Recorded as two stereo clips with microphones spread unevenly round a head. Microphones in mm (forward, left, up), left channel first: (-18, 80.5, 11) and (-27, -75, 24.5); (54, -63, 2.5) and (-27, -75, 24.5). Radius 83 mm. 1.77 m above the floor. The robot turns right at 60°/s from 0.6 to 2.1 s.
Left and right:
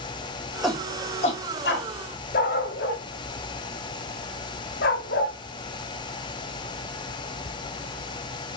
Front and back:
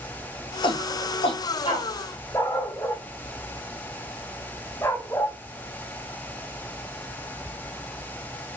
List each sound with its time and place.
0.6 s a shout: 5° right, 4 m; by 1.9 s 70° left, 4 m
2.3 s a dog barking: 90° left, 1.8 m